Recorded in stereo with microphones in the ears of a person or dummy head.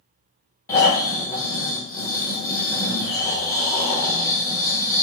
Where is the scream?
I don't hear a scream.